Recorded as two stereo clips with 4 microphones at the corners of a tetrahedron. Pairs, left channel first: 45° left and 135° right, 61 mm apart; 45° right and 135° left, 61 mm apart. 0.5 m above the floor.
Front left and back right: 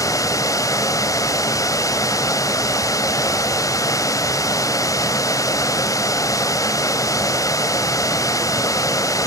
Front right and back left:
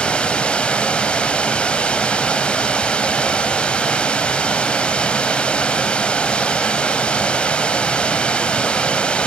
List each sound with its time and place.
0.0 s running water: 25° left, 1.0 m